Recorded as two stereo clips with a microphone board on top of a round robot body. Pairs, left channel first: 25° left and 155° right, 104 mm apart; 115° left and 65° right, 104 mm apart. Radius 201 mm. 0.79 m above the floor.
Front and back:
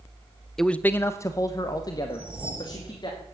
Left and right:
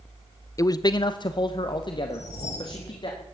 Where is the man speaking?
105° left, 0.7 m; by 3.1 s 70° left, 2.5 m.